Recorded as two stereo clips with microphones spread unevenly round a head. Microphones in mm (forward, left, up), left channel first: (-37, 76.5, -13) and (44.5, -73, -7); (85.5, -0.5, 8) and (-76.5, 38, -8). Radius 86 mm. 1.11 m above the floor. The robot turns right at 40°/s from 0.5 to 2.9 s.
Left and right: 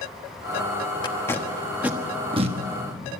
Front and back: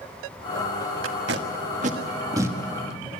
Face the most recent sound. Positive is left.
turn(degrees=-100)